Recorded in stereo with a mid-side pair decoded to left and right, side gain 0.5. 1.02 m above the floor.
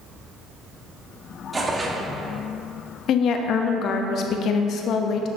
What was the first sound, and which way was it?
Tearing paper, 20° right.